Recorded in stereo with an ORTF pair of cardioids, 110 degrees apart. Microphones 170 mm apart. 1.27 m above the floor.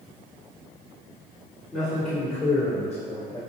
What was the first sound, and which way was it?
A man speaking, straight ahead.